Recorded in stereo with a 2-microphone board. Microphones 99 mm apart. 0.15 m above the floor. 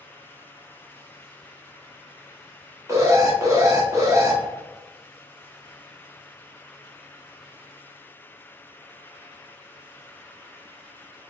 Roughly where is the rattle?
I don't hear a rattle.